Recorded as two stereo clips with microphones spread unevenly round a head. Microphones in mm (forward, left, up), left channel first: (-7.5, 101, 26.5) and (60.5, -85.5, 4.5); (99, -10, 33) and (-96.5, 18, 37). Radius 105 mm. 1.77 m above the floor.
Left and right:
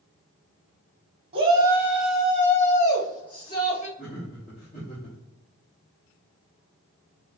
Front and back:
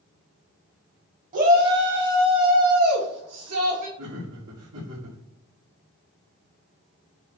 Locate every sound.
1.3 s a shout: 135° right, 1.2 m; by 3.9 s 170° left, 2.5 m
4.0 s laughter: 175° left, 1.5 m